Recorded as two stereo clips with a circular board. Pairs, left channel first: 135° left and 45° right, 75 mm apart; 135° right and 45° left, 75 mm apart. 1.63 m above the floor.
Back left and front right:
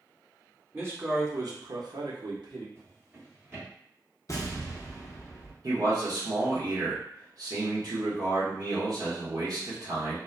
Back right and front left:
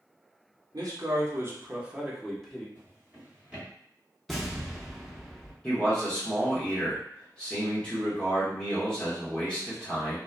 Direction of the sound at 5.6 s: 60° right.